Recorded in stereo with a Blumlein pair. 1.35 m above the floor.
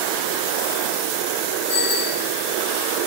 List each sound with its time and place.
1.7 s a bicycle bell: 65° left, 6 m